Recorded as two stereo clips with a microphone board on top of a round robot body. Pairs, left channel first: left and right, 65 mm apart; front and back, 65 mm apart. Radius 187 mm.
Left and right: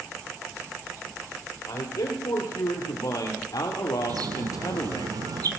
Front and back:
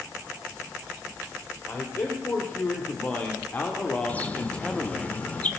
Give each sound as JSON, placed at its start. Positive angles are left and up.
{"t": 1.7, "sound": "a man speaking", "azimuth_deg": 60, "distance_m": 3.5}
{"t": 4.1, "sound": "a bird", "azimuth_deg": -70, "distance_m": 1.9}